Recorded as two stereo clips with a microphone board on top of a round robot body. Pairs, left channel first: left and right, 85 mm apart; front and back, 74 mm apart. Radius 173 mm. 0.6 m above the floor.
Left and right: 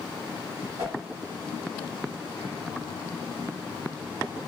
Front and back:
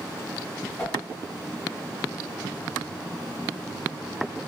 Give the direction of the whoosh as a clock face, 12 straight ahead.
2 o'clock.